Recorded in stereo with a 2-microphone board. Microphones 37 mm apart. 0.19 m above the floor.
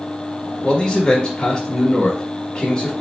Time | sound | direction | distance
0.6 | a man speaking | 20° left (ahead or behind) | 1.1 m